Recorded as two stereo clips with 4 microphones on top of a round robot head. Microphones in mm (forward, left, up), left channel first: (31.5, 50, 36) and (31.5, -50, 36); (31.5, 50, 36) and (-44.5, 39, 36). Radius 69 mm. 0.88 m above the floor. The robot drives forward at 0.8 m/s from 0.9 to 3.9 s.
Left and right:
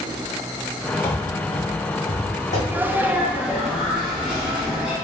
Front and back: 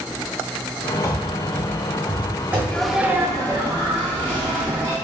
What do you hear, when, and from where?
1.0 s running footsteps: 30° left, 1.1 m; by 2.6 s 120° left, 2.5 m
2.7 s a sneeze: 45° right, 0.5 m; by 4.9 s 170° right, 0.9 m